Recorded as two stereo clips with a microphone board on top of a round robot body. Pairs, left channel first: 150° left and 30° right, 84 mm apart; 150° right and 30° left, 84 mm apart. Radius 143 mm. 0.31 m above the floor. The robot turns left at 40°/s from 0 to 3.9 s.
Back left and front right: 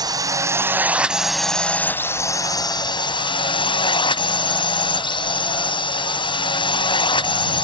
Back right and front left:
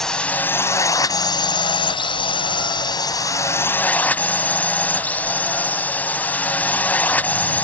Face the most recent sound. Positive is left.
turn(degrees=140)